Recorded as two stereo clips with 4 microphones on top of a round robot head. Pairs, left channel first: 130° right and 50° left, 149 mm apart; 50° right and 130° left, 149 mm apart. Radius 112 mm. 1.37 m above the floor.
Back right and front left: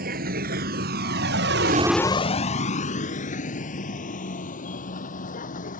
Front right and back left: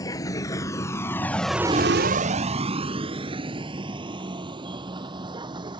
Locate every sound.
0.0 s a vehicle: 20° left; by 5.8 s 165° right